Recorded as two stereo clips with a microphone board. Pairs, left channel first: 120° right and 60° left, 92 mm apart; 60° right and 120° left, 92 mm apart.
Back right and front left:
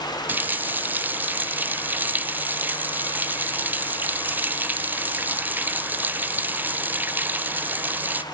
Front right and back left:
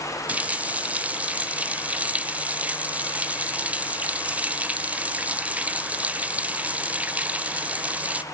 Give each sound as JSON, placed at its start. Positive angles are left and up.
{"t": 0.3, "sound": "a running tap", "azimuth_deg": 75, "distance_m": 0.6}